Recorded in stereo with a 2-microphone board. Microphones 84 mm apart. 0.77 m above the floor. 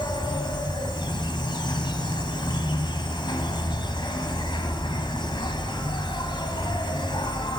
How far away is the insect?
About 2.5 m.